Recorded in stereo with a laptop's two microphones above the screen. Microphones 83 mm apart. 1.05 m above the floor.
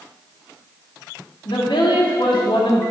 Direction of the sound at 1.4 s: 80° left.